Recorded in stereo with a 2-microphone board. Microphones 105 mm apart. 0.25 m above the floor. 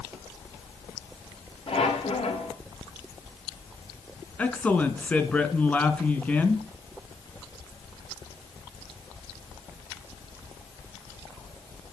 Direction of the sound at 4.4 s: 10° left (ahead or behind).